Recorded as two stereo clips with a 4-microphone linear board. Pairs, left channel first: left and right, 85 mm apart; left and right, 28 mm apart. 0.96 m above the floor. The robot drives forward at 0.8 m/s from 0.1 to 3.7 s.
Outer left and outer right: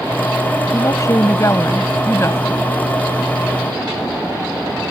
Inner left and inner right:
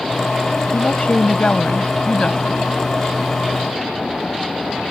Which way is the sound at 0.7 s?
40° left (ahead or behind).